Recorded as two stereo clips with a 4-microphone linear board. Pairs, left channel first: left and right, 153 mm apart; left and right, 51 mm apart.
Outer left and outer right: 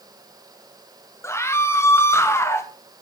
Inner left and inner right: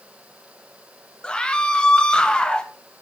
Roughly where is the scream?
Centre.